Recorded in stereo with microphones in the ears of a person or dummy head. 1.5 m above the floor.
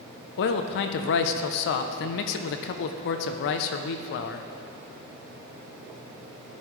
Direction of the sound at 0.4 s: 60° left (ahead or behind).